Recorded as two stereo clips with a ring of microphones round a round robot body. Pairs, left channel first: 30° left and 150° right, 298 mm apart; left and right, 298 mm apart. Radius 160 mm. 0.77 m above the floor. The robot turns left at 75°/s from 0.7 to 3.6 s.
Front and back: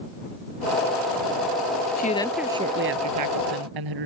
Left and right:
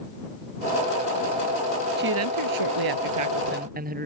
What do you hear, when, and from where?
2.0 s a woman speaking: 30° right; by 4.1 s 155° right